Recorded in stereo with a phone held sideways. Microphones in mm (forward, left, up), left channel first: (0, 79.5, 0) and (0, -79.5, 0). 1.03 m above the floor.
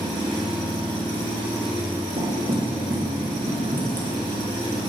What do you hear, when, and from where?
0.0 s an engine running: 35° right (ahead or behind), 2 m
2.2 s knocking: 55° right (ahead or behind), 1.3 m